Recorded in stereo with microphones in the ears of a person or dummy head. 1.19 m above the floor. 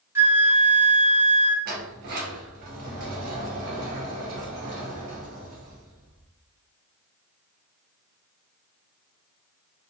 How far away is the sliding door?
About 0.5 m.